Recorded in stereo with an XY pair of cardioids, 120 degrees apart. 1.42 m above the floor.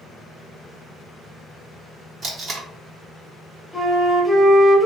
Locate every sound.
2.2 s tape being pulled: 45° right, 1.1 m
3.7 s a flute: 5° right, 0.9 m